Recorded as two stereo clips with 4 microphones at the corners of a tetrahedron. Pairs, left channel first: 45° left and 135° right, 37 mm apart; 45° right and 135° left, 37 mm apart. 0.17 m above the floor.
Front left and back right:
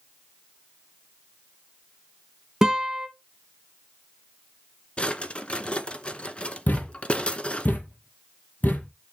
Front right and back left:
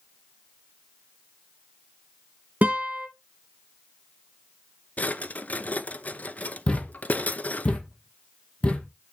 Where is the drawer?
10° right, 0.9 m.